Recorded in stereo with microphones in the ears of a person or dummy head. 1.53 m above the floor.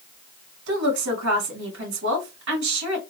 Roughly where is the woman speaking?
Right.